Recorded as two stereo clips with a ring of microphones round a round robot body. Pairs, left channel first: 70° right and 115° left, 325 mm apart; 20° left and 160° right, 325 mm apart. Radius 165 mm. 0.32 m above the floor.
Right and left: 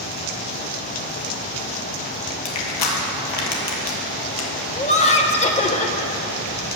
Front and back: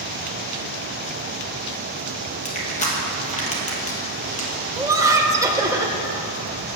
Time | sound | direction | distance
2.5 | crushing | 45° right | 1.7 m
4.8 | laughter | 95° right | 0.9 m